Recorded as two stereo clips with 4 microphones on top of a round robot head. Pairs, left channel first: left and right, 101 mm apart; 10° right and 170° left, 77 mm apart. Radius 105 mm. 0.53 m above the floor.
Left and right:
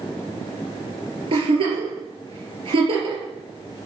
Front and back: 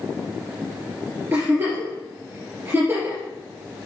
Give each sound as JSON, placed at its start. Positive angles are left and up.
{"t": 1.3, "sound": "a giggle", "azimuth_deg": -125, "distance_m": 4.0}